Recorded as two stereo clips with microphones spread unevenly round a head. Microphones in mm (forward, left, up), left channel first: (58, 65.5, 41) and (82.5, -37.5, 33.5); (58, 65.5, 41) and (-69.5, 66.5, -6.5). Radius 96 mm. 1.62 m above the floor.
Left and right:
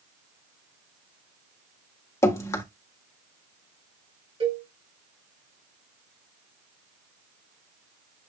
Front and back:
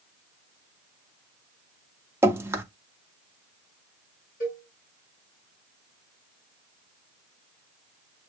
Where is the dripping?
85° left, 0.9 m.